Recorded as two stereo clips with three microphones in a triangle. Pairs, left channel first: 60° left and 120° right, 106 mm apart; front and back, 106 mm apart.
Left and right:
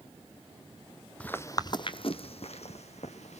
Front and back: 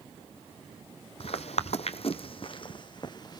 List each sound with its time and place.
1.2 s footsteps: 20° right, 0.5 m; by 3.4 s 50° left, 1.3 m